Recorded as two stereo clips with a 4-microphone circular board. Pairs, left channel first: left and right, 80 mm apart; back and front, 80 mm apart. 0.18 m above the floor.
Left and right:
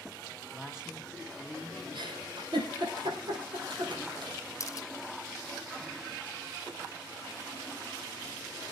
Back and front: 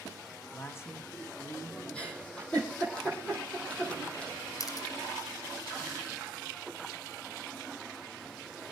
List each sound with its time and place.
0.5 s a man speaking: 165° right, 1.3 m
1.9 s a giggle: 105° right, 5.5 m
4.6 s a camera shutter: 140° left, 1.3 m